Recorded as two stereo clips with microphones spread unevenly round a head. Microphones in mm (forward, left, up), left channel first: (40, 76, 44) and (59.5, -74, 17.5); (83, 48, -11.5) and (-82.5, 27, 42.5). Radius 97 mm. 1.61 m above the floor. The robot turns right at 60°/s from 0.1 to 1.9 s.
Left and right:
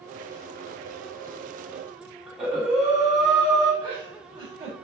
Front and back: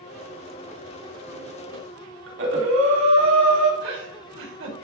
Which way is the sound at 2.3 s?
170° right.